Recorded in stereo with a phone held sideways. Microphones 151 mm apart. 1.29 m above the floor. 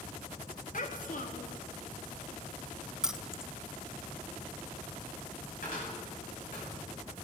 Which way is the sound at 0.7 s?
60° left (ahead or behind).